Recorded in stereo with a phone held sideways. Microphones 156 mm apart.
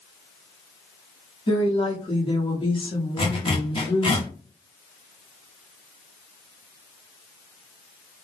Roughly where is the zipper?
Left.